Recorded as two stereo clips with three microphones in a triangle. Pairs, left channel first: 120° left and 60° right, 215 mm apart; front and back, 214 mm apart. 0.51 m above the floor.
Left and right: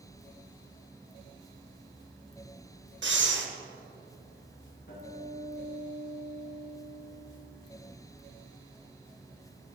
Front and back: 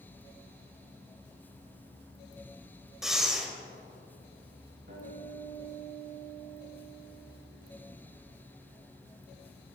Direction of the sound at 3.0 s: 90° right.